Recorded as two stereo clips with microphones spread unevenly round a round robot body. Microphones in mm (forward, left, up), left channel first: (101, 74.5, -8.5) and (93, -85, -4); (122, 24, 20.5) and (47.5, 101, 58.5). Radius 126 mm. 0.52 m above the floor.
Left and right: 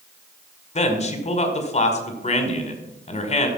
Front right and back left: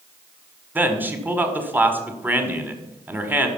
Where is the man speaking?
50° left, 1.8 m.